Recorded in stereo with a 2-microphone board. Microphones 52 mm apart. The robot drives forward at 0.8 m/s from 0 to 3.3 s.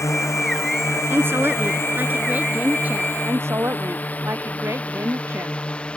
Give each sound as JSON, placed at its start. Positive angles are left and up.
{"t": 0.0, "sound": "a drone", "side_deg": 70}
{"t": 1.1, "sound": "a woman speaking", "side_deg": -50}
{"t": 3.2, "sound": "a woman speaking", "side_deg": -55}